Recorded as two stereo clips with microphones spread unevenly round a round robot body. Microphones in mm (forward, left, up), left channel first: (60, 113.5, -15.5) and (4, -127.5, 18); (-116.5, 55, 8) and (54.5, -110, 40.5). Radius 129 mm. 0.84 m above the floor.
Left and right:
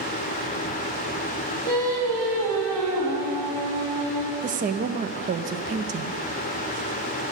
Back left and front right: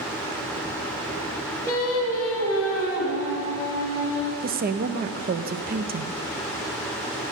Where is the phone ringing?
I don't hear a phone ringing.